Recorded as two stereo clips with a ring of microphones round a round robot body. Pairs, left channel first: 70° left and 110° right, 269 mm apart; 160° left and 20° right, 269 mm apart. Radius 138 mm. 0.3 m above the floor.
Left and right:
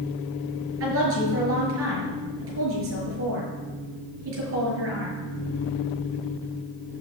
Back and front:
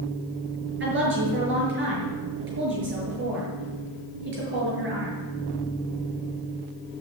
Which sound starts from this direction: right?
A woman speaking, at 0.8 s.